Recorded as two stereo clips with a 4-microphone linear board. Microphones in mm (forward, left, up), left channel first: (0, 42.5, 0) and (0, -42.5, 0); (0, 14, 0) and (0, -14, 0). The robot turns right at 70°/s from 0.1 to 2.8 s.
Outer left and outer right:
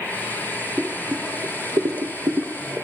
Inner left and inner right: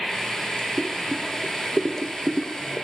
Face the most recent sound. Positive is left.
turn(degrees=-20)  # may be behind; listen again after turning